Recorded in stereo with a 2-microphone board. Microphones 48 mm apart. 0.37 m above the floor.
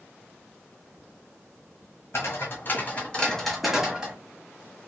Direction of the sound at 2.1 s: 55° left (ahead or behind).